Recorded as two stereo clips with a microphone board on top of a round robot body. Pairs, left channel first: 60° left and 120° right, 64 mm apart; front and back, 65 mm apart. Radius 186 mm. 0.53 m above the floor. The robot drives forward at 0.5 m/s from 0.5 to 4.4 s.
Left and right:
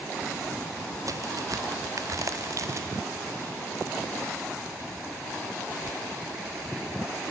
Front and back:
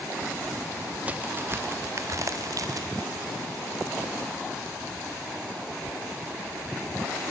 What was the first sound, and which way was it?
A crack, 115° right.